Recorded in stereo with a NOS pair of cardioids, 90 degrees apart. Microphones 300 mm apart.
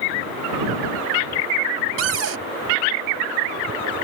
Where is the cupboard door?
50° right.